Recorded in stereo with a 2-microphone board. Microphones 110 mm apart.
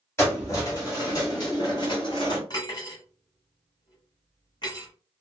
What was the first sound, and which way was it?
Keys jangling, 25° left (ahead or behind).